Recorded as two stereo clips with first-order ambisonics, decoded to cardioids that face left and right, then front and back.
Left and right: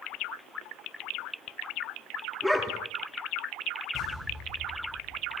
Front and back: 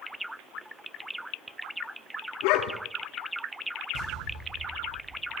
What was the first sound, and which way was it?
A dog barking, straight ahead.